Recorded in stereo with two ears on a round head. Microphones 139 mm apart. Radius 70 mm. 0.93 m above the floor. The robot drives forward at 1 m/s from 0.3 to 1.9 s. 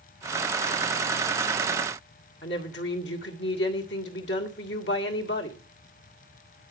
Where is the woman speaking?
85° left, 2 m.